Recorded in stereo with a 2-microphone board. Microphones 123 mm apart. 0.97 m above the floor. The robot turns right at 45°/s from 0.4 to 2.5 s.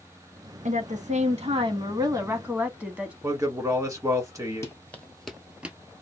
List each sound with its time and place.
0.7 s a woman speaking: 95° right, 1.2 m; by 3.1 s 10° right, 1.2 m
3.2 s a man speaking: 25° right (ahead or behind), 1.5 m
4.6 s running footsteps: 25° left (ahead or behind), 1.0 m; by 5.8 s 15° right (ahead or behind), 0.9 m